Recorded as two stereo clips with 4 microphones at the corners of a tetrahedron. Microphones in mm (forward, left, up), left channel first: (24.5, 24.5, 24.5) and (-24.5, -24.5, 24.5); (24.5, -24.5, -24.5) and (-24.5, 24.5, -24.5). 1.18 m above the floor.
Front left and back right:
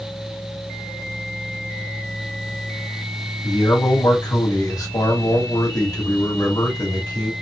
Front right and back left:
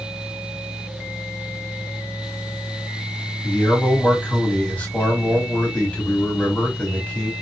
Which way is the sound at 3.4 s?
25° left.